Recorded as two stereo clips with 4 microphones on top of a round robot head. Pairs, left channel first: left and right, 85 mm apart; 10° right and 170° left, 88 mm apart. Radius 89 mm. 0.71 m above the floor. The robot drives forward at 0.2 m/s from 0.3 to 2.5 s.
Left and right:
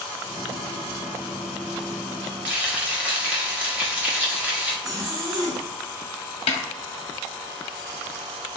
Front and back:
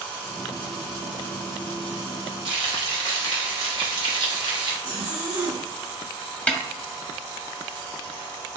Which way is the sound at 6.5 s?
65° left.